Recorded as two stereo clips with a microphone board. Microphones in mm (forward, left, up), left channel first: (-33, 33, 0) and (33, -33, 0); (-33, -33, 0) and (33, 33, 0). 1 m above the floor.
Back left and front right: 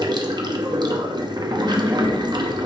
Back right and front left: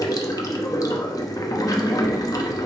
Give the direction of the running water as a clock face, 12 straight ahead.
3 o'clock.